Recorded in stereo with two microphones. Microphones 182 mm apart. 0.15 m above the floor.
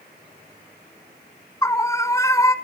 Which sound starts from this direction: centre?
A scream, at 1.6 s.